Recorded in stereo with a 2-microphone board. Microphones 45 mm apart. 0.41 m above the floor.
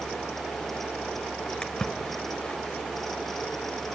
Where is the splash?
20° left (ahead or behind), 1.2 m.